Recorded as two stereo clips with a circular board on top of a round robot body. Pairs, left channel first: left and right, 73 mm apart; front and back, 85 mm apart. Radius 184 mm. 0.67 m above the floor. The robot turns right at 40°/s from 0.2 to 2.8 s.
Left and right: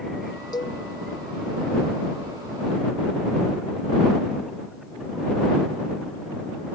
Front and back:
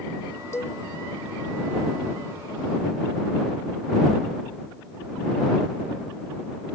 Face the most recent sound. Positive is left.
turn(degrees=150)